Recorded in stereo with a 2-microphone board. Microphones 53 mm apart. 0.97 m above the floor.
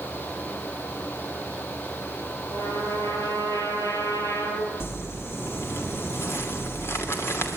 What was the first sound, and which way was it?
A trumpet, 80° left.